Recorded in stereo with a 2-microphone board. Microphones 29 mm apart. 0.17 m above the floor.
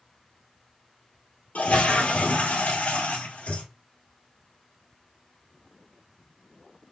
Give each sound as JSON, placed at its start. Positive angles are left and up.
{"t": 1.6, "sound": "a toilet flushing", "side_deg": 80, "distance_m": 1.0}